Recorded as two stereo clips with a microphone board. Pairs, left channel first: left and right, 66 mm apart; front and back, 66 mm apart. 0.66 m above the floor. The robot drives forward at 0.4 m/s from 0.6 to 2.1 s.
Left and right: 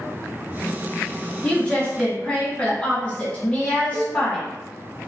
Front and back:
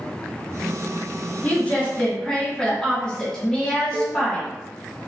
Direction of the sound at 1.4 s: 35° left.